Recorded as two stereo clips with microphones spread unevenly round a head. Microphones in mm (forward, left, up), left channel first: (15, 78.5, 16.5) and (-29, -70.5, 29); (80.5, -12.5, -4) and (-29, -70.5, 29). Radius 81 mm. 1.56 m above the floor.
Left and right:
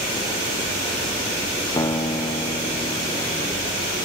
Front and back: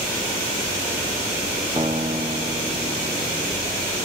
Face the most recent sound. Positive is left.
turn(degrees=140)